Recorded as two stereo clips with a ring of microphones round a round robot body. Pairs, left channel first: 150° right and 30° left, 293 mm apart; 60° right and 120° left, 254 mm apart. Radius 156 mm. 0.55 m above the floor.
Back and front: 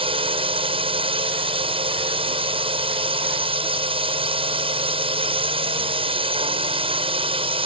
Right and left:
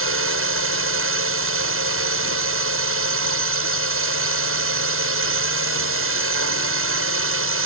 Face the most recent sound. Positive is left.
turn(degrees=100)